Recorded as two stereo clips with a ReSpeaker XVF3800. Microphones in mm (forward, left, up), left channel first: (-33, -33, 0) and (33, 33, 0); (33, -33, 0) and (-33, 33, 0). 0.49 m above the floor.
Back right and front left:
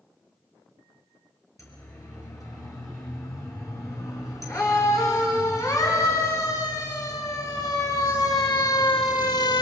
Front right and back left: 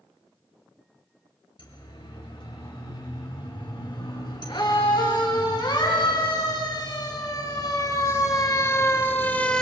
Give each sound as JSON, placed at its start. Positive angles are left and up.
{"t": 1.6, "sound": "a siren", "azimuth_deg": -80, "distance_m": 7.0}